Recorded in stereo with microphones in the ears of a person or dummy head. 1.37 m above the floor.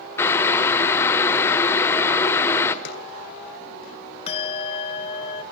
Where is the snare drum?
55° left (ahead or behind), 3 m.